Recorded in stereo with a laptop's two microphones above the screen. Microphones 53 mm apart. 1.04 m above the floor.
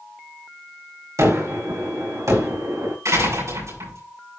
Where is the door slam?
70° right (ahead or behind), 7 m.